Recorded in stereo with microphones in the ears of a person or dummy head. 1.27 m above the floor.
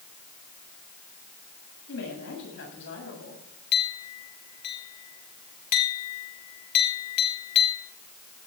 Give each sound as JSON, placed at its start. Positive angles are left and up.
{"t": 1.9, "sound": "a woman speaking", "side_deg": 60, "distance_m": 7.5}
{"t": 3.7, "sound": "a clink", "side_deg": 40, "distance_m": 3.5}